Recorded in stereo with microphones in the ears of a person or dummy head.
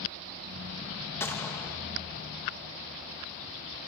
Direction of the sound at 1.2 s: 10° left (ahead or behind).